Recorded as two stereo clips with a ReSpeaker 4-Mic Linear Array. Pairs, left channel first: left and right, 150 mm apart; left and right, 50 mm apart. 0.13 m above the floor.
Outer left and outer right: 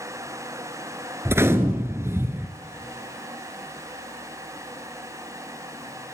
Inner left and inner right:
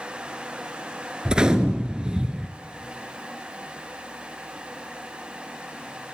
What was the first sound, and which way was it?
A gunshot, 15° right (ahead or behind).